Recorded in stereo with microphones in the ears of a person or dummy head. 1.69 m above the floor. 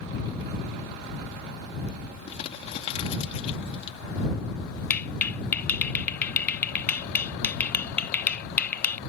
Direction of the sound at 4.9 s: 10° left (ahead or behind).